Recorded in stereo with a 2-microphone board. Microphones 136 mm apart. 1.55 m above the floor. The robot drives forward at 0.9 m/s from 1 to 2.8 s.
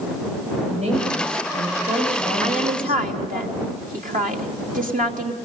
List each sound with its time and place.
0.7 s a woman speaking: 55° right (ahead or behind), 9 m; by 3.4 s 50° right (ahead or behind), 10 m
2.4 s a woman speaking: 70° right (ahead or behind), 3 m; by 5.3 s 80° right, 2.5 m